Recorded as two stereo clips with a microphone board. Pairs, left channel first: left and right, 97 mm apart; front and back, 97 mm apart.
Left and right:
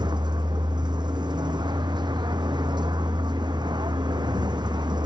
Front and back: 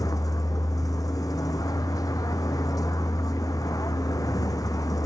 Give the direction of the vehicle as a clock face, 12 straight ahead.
2 o'clock.